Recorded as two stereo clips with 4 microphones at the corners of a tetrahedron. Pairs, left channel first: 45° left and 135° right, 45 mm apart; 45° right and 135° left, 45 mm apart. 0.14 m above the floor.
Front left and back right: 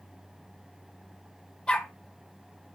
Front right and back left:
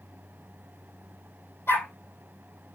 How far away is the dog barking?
About 2 m.